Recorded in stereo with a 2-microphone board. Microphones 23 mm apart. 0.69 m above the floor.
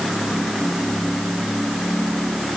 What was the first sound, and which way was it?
Only background noise.